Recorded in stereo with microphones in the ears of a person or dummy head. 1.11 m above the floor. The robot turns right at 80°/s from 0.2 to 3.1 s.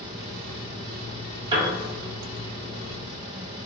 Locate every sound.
1.5 s a piano: 25° right (ahead or behind), 0.7 m